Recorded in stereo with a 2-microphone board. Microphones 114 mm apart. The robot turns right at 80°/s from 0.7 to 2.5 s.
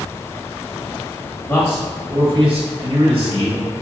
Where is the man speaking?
145° left, 0.9 m; by 3.6 s 130° right, 0.9 m.